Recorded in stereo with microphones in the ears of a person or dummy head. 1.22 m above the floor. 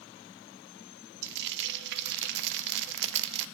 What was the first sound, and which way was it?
Frying, 60° right (ahead or behind).